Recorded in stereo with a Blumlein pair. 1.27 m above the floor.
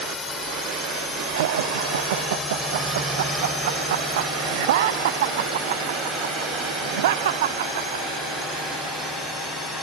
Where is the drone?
20° left; by 9.8 s straight ahead.